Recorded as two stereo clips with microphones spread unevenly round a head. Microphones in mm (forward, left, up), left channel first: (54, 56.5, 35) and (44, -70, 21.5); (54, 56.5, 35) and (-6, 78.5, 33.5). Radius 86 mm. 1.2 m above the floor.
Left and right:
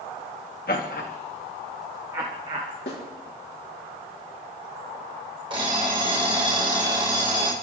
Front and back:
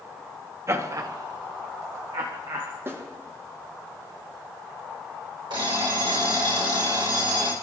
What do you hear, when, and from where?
0.7 s laughter: 115° left, 1.9 m; by 2.7 s 150° right, 2 m
2.9 s a snare drum: 110° left, 5.5 m
5.5 s an alarm clock: 160° right, 3 m